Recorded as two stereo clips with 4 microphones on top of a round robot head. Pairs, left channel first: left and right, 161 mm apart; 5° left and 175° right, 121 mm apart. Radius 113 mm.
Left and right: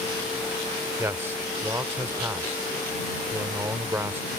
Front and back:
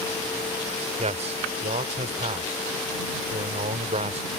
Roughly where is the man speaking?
Behind.